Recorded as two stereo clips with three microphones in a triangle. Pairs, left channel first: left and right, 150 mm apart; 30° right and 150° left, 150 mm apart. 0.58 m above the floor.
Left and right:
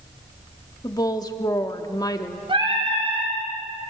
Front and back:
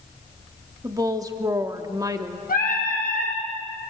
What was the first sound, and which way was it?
A woman speaking, 115° left.